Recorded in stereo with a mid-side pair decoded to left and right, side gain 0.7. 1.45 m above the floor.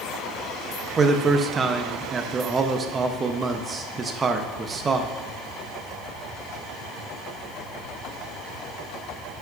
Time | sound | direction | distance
1.0 | a man speaking | 25° right | 1.0 m